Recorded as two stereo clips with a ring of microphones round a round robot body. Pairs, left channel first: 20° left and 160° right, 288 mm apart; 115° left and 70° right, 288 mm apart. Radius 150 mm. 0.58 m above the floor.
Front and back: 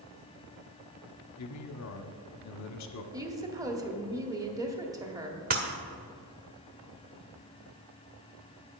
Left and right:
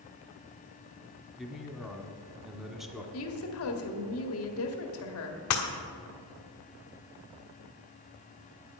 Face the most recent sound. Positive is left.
turn(degrees=145)